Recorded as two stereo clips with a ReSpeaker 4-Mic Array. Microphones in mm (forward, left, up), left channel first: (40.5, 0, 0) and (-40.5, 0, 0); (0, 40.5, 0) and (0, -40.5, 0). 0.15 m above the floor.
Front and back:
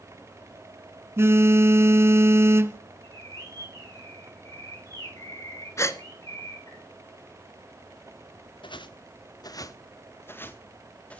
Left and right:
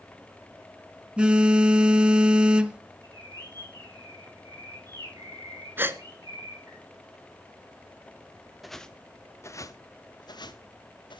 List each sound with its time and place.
1.2 s a phone buzzing: 160° right, 1.1 m
3.0 s a bird: 50° right, 9.5 m
5.8 s a gasp: 35° right, 1.2 m
8.6 s footsteps: straight ahead, 1.4 m; by 11.2 s 75° left, 3 m